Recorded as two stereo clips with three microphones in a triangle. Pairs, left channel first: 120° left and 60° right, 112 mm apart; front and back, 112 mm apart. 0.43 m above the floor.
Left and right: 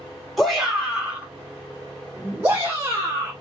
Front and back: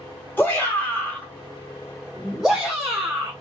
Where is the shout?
30° left, 1.4 m; by 3.3 s 105° right, 1.7 m.